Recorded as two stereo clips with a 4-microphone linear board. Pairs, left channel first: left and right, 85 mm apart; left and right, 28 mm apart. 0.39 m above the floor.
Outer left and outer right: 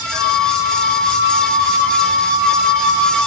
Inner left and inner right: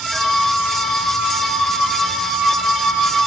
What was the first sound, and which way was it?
A flute, 5° left (ahead or behind).